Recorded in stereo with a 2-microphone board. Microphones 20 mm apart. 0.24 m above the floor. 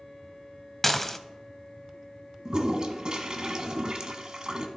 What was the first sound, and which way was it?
Dishes clattering, 15° left (ahead or behind).